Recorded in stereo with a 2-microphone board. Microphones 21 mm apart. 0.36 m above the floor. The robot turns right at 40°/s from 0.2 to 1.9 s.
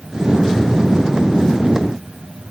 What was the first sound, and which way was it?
Only background noise.